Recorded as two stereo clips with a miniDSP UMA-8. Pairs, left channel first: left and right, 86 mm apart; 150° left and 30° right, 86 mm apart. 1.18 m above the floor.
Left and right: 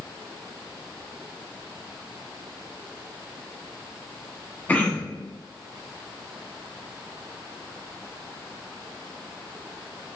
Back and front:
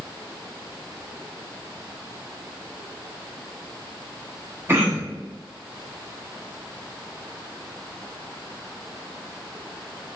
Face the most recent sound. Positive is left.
turn(degrees=25)